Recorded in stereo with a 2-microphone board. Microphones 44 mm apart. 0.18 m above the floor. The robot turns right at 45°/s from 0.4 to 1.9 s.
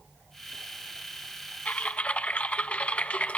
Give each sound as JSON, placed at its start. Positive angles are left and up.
{"t": 1.6, "sound": "typing on a keyboard", "side_deg": 35, "distance_m": 0.6}